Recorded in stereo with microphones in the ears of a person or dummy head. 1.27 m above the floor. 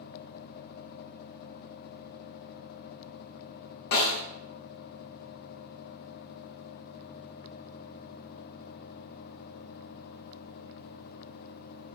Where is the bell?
I don't hear a bell.